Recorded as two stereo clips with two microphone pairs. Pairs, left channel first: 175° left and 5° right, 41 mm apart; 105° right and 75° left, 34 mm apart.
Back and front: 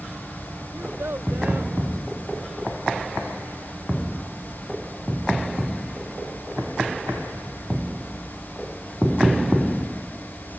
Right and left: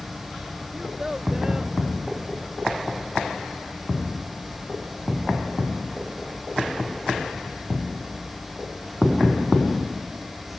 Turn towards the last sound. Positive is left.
turn(degrees=0)